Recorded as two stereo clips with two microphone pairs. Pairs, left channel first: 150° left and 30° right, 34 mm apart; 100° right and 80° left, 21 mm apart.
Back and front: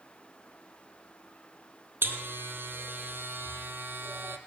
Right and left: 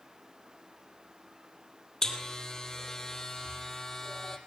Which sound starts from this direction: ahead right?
A buzzer, at 2.0 s.